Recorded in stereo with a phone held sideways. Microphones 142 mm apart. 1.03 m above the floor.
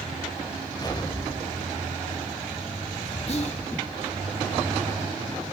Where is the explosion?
30° left (ahead or behind), 0.9 m.